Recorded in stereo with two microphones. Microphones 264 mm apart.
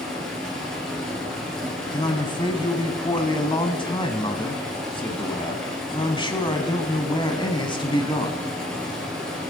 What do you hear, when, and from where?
0.0 s running water: centre (ahead or behind), 3.5 m
1.9 s a man speaking: 20° left (ahead or behind), 1.0 m